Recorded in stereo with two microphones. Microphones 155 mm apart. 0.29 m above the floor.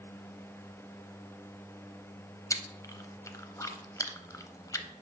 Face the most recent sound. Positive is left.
turn(degrees=20)  # may be behind; listen again after turning